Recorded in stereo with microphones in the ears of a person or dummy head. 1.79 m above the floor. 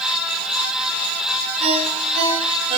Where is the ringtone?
35° right (ahead or behind), 6 m.